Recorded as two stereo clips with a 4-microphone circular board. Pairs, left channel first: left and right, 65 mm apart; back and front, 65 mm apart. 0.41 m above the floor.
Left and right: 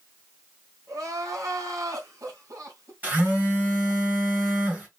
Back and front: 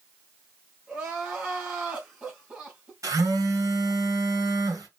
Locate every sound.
0.9 s crying: 70° right, 2 m
3.0 s a phone buzzing: 25° right, 2.5 m